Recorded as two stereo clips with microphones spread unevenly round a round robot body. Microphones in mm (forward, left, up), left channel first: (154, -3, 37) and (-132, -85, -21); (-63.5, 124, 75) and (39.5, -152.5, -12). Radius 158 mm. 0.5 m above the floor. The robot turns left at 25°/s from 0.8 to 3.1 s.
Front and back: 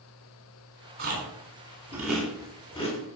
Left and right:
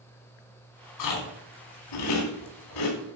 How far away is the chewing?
About 3 m.